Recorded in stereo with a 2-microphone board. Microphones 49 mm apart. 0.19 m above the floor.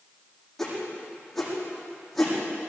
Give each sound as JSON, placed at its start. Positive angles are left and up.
{"t": 0.6, "sound": "a whoosh", "side_deg": 0, "distance_m": 8.5}